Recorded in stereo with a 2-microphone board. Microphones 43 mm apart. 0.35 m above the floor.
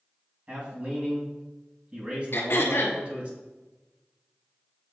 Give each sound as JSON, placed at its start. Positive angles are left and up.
{"t": 0.5, "sound": "a man speaking", "side_deg": -30, "distance_m": 2.5}
{"t": 2.3, "sound": "throat clearing", "side_deg": 70, "distance_m": 1.1}